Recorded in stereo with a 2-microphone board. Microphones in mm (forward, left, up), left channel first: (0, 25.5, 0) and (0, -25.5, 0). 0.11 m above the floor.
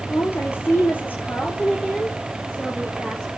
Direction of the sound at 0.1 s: 55° left (ahead or behind).